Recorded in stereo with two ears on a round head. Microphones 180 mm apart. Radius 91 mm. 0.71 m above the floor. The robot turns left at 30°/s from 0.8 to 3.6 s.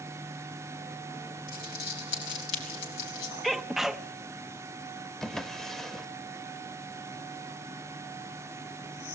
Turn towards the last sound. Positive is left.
turn(degrees=5)  # may be behind; listen again after turning